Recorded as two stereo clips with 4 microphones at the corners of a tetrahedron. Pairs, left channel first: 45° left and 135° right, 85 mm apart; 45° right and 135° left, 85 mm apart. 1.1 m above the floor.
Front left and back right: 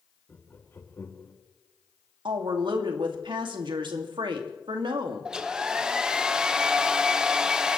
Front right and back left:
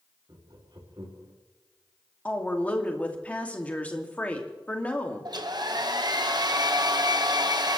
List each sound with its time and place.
0.3 s laughter: 105° left, 2.5 m
2.2 s a woman speaking: 120° right, 2 m
5.2 s a hair dryer: 145° left, 1.1 m